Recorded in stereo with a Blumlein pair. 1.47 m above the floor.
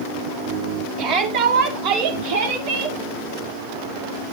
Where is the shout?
45° right, 4 m; by 3.0 s 65° right, 5 m.